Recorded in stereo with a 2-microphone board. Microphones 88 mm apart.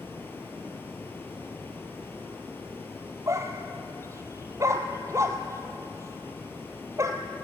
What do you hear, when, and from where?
0.0 s running water: 25° left (ahead or behind), 3.5 m
3.3 s a dog barking: 35° right (ahead or behind), 1.5 m